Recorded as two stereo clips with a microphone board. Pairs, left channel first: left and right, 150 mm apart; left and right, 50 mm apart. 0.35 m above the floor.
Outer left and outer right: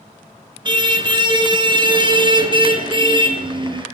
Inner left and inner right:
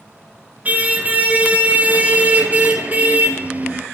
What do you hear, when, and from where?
0.7 s a car horn: 30° right (ahead or behind), 3 m